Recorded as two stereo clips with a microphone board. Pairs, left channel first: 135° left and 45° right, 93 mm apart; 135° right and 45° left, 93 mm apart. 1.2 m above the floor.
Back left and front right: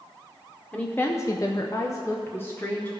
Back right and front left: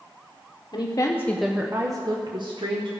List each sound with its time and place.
0.7 s a woman speaking: 155° right, 1.0 m; by 2.9 s 65° left, 1.8 m